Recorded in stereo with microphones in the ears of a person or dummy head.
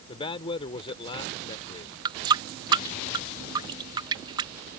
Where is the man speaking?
30° left (ahead or behind).